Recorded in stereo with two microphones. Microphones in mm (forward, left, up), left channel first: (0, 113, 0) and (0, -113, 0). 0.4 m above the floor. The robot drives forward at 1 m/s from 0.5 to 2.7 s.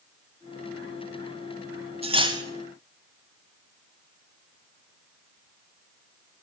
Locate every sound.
2.0 s cutlery clinking: 25° right (ahead or behind), 1.1 m; by 2.4 s 20° right (ahead or behind), 1.5 m